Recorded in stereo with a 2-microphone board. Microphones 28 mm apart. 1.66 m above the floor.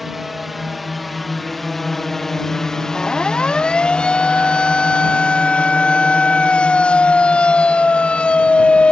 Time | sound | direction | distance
0.0 | a drone | 5° right (ahead or behind) | ?
3.0 | a siren | 30° left (ahead or behind) | ?